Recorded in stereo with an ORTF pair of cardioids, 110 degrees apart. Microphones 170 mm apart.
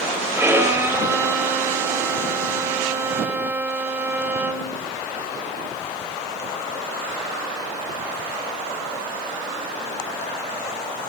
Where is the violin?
15° right, 4.5 m.